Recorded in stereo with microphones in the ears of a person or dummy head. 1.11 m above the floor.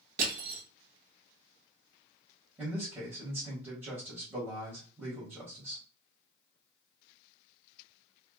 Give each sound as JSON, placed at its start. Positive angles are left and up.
{"t": 0.2, "sound": "crushing", "side_deg": -45, "distance_m": 1.3}
{"t": 2.6, "sound": "a man speaking", "side_deg": -10, "distance_m": 1.4}